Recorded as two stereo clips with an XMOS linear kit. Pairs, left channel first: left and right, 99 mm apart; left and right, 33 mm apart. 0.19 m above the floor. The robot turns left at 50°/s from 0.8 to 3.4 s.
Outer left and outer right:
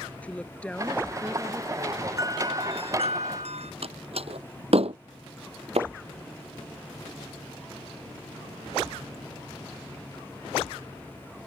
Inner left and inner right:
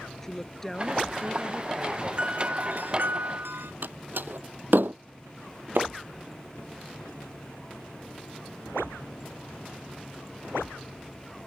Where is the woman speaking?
15° left; by 2.1 s 50° right.